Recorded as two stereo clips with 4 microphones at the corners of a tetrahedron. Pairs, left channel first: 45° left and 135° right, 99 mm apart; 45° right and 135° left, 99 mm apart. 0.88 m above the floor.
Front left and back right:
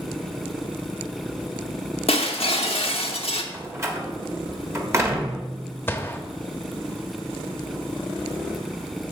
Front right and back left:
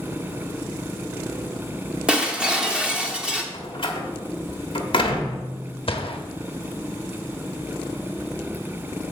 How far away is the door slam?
About 1.4 m.